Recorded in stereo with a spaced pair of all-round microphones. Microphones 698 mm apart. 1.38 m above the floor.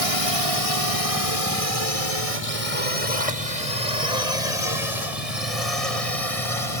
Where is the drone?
50° left (ahead or behind); by 6.8 s 55° left (ahead or behind).